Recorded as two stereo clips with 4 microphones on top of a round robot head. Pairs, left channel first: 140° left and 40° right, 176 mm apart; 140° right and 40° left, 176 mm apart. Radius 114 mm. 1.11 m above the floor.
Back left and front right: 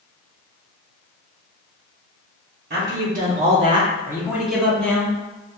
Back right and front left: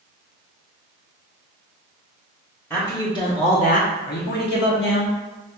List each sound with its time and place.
2.7 s a man speaking: 60° right, 1.0 m; by 5.1 s 140° right, 1.4 m